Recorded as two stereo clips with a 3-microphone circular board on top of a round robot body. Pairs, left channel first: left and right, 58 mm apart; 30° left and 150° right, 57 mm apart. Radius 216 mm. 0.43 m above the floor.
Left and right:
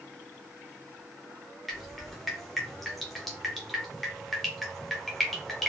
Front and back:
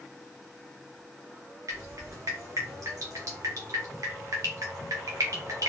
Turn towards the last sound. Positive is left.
turn(degrees=180)